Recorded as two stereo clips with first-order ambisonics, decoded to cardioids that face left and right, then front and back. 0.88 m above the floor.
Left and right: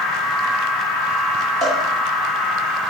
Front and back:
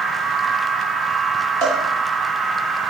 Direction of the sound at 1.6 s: 150° right.